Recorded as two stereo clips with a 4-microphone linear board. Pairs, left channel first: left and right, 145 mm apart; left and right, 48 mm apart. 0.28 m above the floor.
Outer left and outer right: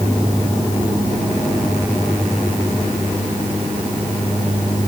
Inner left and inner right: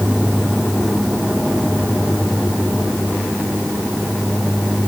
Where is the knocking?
I don't hear knocking.